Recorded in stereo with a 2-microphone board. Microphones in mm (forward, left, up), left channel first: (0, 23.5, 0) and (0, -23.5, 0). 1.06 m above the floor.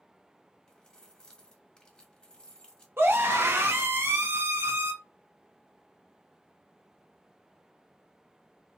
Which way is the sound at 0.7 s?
15° left (ahead or behind).